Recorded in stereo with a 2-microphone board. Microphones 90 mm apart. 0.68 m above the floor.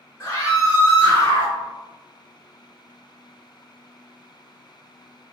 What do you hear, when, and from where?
0.2 s a scream: 20° left (ahead or behind), 1.2 m